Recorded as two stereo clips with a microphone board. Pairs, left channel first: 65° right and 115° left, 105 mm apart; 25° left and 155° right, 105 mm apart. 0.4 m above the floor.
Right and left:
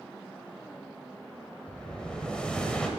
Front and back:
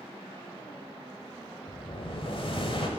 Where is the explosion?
10° left, 1.3 m.